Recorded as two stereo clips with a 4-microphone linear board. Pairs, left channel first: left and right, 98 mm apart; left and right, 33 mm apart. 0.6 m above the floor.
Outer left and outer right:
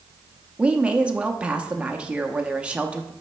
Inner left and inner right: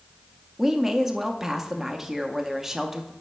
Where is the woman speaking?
10° right (ahead or behind), 0.5 m.